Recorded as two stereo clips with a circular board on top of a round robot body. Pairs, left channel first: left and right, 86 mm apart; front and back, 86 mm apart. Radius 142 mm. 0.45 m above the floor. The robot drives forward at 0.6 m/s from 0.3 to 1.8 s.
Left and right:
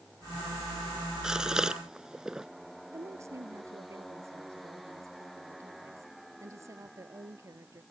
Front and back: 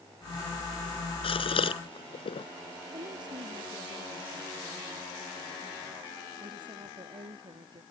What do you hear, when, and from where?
1.2 s a gasp: 5° right
2.9 s a woman speaking: 145° right